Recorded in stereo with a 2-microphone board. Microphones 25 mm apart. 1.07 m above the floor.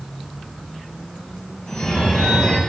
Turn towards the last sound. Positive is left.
turn(degrees=80)